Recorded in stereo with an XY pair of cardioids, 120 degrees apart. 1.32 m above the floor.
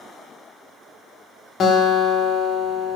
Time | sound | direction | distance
1.6 | a guitar | 45° left | 1.7 m